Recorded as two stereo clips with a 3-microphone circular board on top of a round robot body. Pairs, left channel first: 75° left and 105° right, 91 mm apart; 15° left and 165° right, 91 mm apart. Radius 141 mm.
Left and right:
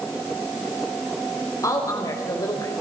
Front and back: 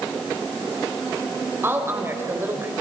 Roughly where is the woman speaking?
Behind left.